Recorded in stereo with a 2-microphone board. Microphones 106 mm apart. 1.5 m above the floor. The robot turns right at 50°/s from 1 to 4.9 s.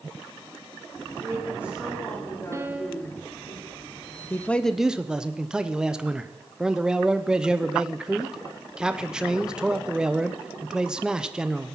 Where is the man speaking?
155° left, 0.8 m; by 11.8 s 175° right, 0.8 m.